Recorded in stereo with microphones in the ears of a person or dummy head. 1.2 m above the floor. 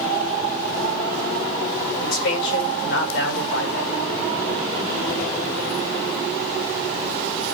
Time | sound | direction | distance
2.0 | a man speaking | 70° left (ahead or behind) | 6 m